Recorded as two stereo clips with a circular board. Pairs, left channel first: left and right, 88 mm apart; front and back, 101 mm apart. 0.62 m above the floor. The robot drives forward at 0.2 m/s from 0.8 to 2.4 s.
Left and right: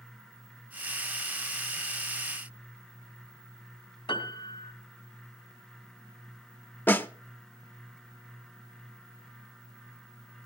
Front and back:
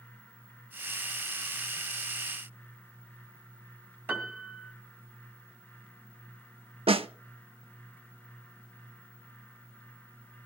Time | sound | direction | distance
4.1 | a piano | 115° left | 2.5 m
6.9 | a snare drum | 160° left | 0.7 m